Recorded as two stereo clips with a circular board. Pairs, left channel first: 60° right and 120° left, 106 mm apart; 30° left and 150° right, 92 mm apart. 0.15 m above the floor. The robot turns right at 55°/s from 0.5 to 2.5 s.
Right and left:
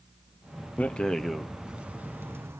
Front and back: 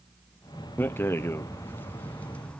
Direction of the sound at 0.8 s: Straight ahead.